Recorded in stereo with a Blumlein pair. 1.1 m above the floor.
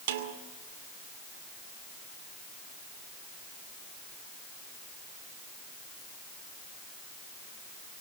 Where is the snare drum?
55° right, 2.5 m.